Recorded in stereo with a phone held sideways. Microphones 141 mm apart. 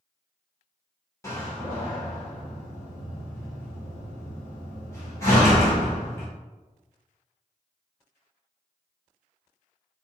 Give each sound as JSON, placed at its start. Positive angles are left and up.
{"t": 1.2, "sound": "a door slam", "side_deg": 20, "distance_m": 1.9}